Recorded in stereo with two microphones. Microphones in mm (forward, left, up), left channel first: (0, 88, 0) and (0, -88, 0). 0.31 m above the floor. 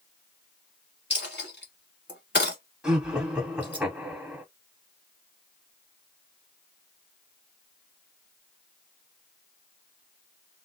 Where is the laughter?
5° right (ahead or behind), 1.6 m.